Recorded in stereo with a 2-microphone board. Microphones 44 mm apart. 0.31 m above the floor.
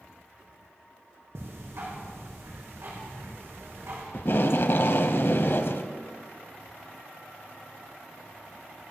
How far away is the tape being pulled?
About 0.8 m.